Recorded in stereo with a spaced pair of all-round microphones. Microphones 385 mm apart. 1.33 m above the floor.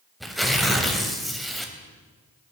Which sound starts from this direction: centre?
Tearing paper, at 0.2 s.